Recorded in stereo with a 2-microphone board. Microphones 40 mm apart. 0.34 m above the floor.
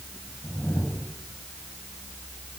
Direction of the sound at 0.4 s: 45° left (ahead or behind).